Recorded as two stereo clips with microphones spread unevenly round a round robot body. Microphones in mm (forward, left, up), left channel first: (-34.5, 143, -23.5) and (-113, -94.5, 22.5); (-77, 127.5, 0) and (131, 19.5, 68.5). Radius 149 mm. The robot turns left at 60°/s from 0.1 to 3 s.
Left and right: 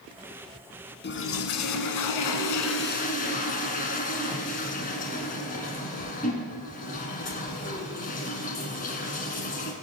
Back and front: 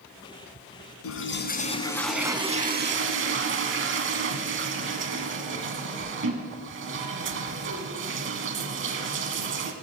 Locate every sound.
1.0 s a toilet flushing: 125° left, 1.3 m; by 9.7 s 5° left, 1.3 m